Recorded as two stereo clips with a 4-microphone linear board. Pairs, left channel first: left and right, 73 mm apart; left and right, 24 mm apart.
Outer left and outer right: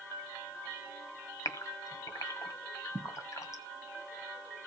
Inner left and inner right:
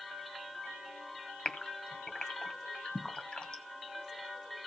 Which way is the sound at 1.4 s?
50° left (ahead or behind).